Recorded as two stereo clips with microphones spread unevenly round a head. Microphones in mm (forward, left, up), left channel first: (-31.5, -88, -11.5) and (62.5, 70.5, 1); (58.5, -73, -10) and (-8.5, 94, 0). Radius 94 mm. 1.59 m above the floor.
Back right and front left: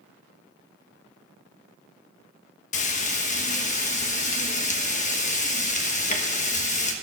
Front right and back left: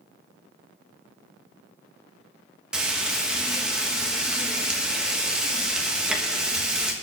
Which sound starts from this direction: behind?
Frying, at 2.7 s.